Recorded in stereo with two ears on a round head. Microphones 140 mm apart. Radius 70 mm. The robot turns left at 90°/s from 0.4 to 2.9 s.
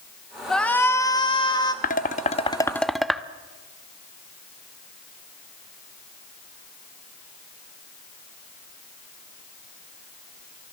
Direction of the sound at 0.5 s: 5° left (ahead or behind).